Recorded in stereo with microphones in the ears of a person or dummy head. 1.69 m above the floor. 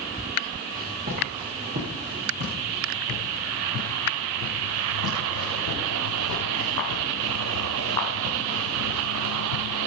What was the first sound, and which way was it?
Footsteps, 40° right (ahead or behind).